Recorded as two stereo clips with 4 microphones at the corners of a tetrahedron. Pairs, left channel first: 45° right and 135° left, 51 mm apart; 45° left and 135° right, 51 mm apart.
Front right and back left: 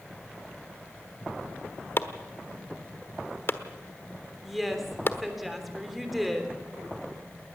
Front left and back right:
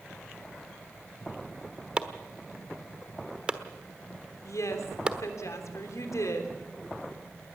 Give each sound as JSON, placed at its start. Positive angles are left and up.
{"t": 2.0, "sound": "chopping", "azimuth_deg": -70, "distance_m": 1.2}
{"t": 4.4, "sound": "a woman speaking", "azimuth_deg": 45, "distance_m": 3.0}